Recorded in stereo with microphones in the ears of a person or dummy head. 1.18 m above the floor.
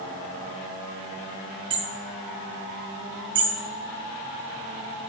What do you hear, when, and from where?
1.7 s hammering: 30° right (ahead or behind), 1.6 m